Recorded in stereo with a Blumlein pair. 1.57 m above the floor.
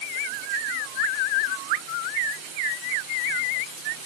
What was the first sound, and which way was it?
Only background noise.